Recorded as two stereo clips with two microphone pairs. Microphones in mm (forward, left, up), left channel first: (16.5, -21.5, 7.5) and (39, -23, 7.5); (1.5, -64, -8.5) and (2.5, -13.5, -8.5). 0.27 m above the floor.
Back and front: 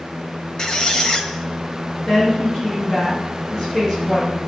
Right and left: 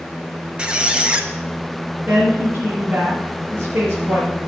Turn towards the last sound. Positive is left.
turn(degrees=130)